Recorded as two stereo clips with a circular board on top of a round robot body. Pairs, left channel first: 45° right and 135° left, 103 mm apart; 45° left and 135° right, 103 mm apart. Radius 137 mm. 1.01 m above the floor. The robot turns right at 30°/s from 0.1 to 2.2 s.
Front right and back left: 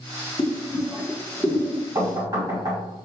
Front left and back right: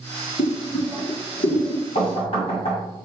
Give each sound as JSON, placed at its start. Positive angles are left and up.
{"t": 0.4, "sound": "boiling", "azimuth_deg": 15, "distance_m": 1.2}
{"t": 1.9, "sound": "knocking", "azimuth_deg": 70, "distance_m": 1.6}